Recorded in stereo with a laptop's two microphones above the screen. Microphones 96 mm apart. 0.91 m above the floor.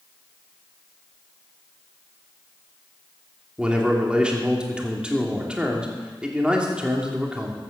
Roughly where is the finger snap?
No finger snap in this recording.